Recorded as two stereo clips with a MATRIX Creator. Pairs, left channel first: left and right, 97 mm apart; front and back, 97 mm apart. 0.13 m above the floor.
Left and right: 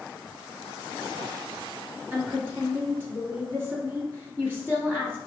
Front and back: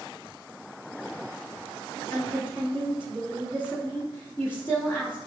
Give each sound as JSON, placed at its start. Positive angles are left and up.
{"t": 2.1, "sound": "a woman speaking", "azimuth_deg": -45, "distance_m": 1.7}